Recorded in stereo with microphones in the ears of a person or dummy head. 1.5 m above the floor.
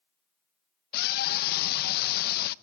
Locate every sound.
0.9 s a scream: 55° left (ahead or behind), 1.2 m